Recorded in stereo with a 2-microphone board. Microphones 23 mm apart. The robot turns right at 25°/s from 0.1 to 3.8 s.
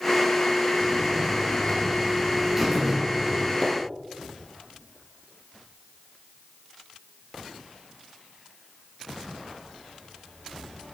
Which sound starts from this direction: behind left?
A buzzer, at 0.8 s.